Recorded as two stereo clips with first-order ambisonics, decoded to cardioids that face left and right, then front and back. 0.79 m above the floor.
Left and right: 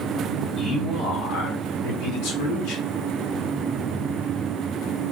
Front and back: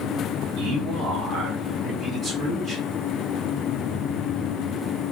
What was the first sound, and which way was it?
A man speaking, 145° left.